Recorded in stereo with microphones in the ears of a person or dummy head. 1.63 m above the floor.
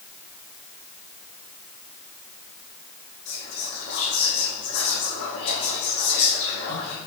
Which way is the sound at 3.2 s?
65° left (ahead or behind).